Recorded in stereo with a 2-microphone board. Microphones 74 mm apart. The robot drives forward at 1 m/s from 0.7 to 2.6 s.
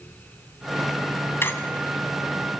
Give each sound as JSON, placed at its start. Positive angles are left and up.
{"t": 1.4, "sound": "a squeak", "side_deg": 35, "distance_m": 1.9}